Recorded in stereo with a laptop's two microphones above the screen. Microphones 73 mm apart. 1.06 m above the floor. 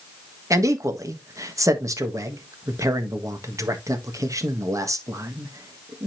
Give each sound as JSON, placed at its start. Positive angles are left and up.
{"t": 0.5, "sound": "a man speaking", "side_deg": -50, "distance_m": 1.4}